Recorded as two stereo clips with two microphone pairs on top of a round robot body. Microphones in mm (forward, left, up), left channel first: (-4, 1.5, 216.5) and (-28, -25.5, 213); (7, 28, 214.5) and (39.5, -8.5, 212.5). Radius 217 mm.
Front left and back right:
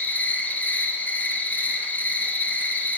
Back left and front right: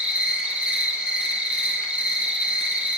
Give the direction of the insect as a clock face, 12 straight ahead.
12 o'clock.